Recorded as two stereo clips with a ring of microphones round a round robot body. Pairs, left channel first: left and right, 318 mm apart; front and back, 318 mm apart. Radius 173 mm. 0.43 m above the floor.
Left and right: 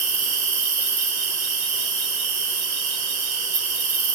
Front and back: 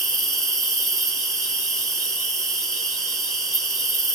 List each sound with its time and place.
0.0 s an insect: 90° right, 5.5 m